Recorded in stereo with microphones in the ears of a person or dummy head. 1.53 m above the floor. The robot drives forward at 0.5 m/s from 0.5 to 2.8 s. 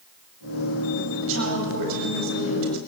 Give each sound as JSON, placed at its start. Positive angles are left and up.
{"t": 1.2, "sound": "a woman speaking", "side_deg": -75, "distance_m": 9.0}